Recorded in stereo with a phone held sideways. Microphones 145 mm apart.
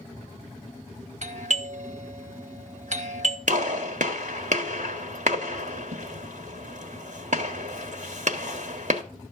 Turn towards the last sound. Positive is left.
turn(degrees=-60)  # may be behind; listen again after turning